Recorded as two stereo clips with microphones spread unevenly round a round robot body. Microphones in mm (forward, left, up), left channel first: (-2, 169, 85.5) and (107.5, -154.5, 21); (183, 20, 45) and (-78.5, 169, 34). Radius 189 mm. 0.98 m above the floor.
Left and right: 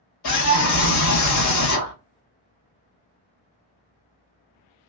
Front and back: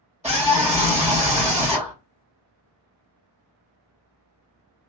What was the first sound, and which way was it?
A scream, 70° left.